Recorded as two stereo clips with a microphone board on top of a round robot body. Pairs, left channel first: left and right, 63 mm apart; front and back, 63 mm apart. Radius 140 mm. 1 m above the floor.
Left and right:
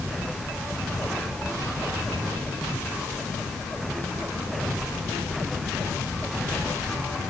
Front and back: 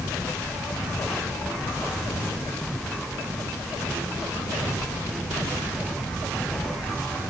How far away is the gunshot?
I don't hear a gunshot.